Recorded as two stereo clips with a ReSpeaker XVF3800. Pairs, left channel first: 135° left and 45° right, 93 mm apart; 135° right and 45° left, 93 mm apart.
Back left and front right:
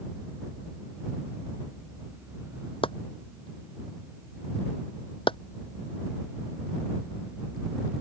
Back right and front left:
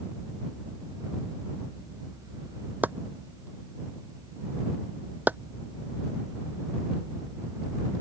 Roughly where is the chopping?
Behind left.